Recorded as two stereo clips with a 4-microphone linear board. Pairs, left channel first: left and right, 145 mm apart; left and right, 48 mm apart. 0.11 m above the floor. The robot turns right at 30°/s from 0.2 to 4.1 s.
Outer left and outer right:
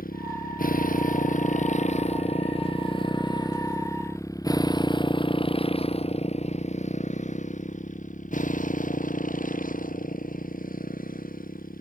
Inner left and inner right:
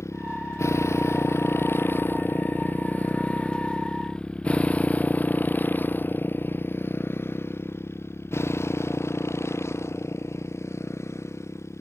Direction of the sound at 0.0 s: 85° left.